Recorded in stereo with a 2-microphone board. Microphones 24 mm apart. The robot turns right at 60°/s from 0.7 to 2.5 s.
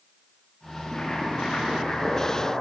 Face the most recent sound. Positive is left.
turn(degrees=120)